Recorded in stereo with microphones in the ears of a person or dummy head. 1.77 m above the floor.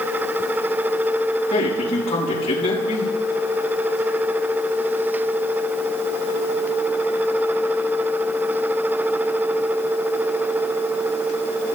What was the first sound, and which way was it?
A man speaking, 35° left (ahead or behind).